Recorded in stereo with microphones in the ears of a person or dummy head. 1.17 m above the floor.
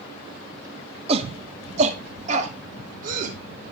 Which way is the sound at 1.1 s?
35° right (ahead or behind).